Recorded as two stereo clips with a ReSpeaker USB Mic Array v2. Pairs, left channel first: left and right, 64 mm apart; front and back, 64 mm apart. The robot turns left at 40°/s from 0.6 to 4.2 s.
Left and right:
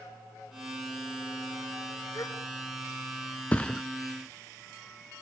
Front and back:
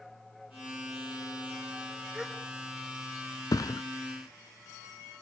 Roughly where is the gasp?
Left.